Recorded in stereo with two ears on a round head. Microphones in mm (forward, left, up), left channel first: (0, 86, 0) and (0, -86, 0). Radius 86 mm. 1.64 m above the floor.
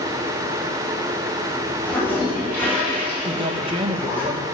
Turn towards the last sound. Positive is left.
turn(degrees=-30)  # may be behind; listen again after turning